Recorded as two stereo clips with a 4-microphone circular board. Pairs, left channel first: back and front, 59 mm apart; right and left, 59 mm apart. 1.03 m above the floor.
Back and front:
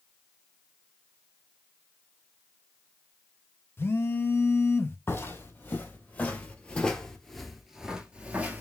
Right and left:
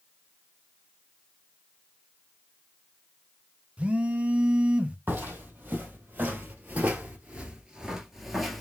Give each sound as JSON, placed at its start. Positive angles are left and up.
{"t": 3.8, "sound": "a phone buzzing", "azimuth_deg": 150, "distance_m": 0.5}
{"t": 5.1, "sound": "footsteps", "azimuth_deg": 140, "distance_m": 1.8}